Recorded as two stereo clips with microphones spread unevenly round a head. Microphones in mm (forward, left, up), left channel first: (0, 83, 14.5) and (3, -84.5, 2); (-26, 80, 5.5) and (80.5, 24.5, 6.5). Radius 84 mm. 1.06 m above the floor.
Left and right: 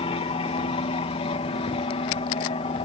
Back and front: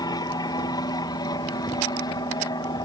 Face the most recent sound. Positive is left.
turn(degrees=125)